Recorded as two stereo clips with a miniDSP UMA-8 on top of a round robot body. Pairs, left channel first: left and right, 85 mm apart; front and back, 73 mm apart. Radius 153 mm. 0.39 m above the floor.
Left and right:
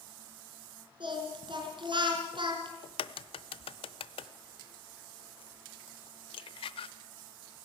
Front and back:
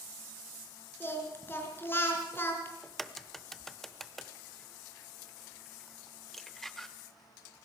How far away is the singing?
About 4 m.